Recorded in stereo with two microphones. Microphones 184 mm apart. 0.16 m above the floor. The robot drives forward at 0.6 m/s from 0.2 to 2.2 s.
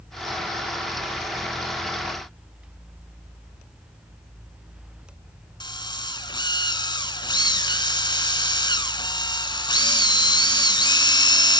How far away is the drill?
About 1.2 m.